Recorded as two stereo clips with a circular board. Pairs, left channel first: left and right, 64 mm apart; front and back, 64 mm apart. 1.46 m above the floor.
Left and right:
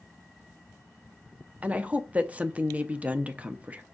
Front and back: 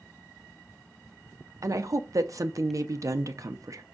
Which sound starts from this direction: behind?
A woman speaking, at 1.6 s.